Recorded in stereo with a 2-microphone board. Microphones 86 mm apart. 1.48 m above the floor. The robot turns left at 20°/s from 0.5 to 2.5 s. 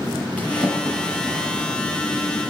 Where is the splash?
15° left (ahead or behind), 7 m; by 1.7 s 10° right (ahead or behind), 7 m.